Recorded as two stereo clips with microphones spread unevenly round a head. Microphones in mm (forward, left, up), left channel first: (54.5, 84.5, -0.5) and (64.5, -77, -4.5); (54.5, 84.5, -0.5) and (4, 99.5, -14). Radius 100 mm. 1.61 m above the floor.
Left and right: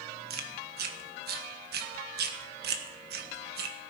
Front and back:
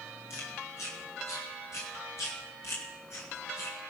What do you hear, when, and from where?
0.3 s chewing: 70° right, 1.4 m